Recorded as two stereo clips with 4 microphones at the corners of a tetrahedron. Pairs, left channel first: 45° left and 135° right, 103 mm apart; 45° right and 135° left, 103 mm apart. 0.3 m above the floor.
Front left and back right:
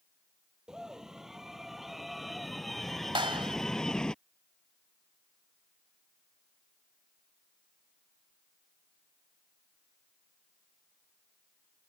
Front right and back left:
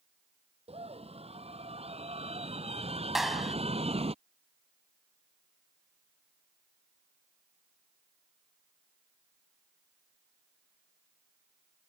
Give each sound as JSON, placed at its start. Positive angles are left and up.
{"t": 0.7, "sound": "a scream", "azimuth_deg": 140}
{"t": 3.1, "sound": "a clap", "azimuth_deg": -140}